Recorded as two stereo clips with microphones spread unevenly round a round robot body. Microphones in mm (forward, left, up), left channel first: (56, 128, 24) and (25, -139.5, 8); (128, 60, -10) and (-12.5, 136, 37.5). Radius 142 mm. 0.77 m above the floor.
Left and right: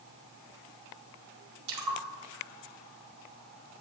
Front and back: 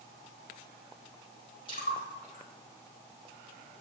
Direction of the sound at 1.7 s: 100° right.